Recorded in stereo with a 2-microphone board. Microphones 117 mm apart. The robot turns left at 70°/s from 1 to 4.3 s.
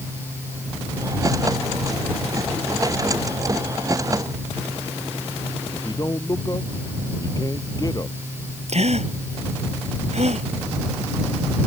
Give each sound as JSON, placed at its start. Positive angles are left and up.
{"t": 5.7, "sound": "a man speaking", "side_deg": 30}
{"t": 8.7, "sound": "a gasp", "side_deg": -70}